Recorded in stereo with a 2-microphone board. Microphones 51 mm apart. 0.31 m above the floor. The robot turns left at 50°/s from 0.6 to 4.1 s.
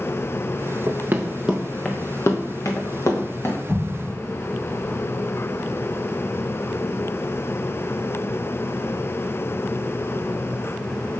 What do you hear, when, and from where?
0.9 s running footsteps: 60° right (ahead or behind), 1.4 m; by 3.6 s 40° left (ahead or behind), 2.5 m
3.7 s an explosion: 25° left (ahead or behind), 4 m; by 4.1 s 5° left (ahead or behind), 4 m